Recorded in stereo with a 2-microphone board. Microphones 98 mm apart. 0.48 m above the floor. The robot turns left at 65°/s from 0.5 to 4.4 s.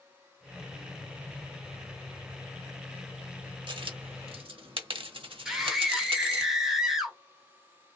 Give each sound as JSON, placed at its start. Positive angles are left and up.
{"t": 3.7, "sound": "a dropped coin", "side_deg": -55, "distance_m": 1.0}
{"t": 5.5, "sound": "a scream", "side_deg": -5, "distance_m": 1.6}